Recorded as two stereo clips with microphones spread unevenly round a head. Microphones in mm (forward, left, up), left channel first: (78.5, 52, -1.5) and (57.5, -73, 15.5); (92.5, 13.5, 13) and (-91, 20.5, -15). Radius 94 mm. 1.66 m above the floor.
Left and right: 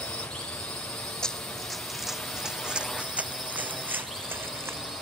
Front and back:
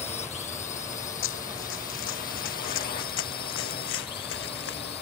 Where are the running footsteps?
5° right; by 4.9 s 30° right.